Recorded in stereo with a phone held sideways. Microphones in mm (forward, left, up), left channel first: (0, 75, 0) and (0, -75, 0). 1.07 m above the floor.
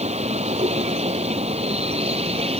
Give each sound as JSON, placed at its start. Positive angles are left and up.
{"t": 0.0, "sound": "a vehicle", "side_deg": -45}